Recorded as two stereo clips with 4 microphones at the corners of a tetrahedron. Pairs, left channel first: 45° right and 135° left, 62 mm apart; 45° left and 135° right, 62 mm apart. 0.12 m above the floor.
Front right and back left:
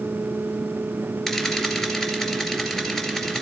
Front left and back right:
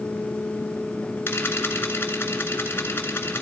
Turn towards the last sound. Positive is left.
turn(degrees=30)